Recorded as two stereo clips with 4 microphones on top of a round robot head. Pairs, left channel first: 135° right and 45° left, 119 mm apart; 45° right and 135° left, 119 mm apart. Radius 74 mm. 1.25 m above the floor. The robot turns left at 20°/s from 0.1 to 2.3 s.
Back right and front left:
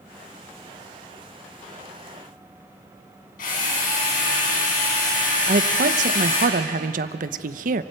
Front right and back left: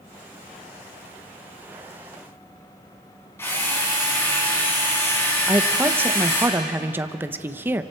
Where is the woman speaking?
60° left, 0.9 m.